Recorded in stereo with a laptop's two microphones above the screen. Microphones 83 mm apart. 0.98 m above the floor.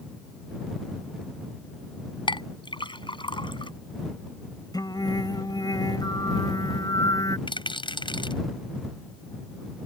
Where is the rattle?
80° left.